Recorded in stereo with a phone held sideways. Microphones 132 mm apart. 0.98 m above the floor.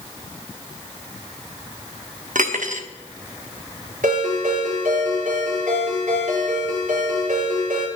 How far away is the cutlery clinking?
About 1.1 m.